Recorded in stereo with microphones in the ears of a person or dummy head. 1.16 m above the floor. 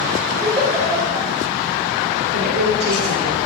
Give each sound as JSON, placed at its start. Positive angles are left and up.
{"t": 0.4, "sound": "a giggle", "side_deg": -15, "distance_m": 5.5}
{"t": 2.3, "sound": "a woman speaking", "side_deg": -55, "distance_m": 3.0}